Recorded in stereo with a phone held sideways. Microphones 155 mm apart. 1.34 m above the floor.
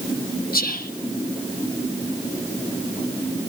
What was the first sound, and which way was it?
Whispering, 70° left (ahead or behind).